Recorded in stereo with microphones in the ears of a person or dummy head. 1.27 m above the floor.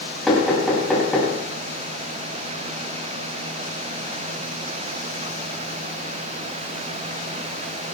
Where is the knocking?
Centre (ahead or behind), 5.5 m.